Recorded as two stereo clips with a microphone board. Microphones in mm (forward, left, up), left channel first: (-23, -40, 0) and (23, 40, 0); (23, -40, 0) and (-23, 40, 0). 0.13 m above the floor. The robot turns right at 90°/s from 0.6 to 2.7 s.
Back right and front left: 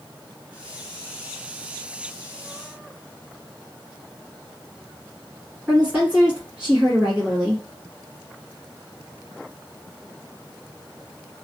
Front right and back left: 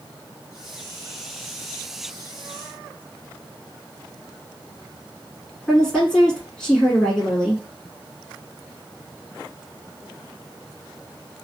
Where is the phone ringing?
I don't hear a phone ringing.